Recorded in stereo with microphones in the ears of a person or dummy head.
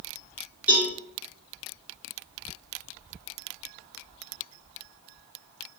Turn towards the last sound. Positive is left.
turn(degrees=-5)  # may be behind; listen again after turning